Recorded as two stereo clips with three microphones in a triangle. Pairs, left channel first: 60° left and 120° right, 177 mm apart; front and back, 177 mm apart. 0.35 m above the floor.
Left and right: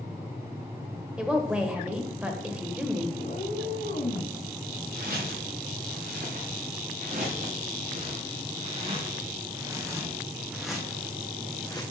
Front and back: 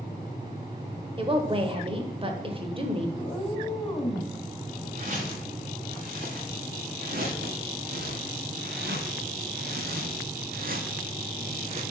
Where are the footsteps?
140° right, 3 m; by 11.8 s 125° left, 1.4 m.